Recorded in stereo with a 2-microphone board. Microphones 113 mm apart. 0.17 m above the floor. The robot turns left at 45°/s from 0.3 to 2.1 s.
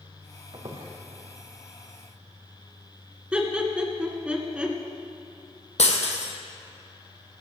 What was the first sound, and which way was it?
A squeak, 45° right (ahead or behind).